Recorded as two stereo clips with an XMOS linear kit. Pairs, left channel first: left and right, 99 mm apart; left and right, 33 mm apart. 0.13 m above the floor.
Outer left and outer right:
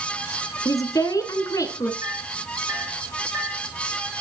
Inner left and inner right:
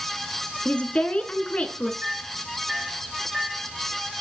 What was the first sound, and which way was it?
A woman speaking, 35° left (ahead or behind).